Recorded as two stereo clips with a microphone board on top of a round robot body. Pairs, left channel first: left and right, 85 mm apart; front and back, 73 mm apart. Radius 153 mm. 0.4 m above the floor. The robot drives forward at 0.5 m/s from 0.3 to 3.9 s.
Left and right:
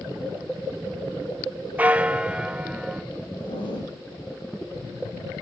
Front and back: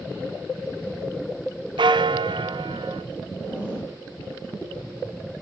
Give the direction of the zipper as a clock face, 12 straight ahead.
8 o'clock.